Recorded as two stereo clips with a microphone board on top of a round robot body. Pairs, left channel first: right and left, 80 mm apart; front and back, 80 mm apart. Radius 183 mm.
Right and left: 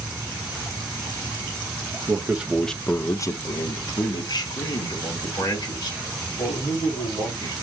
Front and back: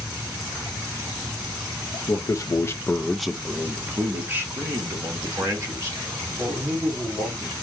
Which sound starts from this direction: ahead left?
A man speaking, at 2.1 s.